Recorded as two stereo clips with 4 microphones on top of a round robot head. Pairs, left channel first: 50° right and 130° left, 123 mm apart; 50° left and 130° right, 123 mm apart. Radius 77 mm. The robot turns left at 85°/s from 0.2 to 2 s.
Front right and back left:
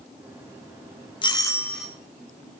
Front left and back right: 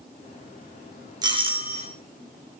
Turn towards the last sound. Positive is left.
turn(degrees=-150)